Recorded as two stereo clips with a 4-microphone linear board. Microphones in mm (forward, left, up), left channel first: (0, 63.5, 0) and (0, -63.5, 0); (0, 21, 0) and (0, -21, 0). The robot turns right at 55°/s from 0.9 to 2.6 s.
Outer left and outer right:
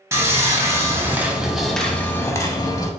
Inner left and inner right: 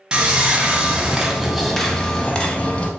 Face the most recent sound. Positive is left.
turn(degrees=55)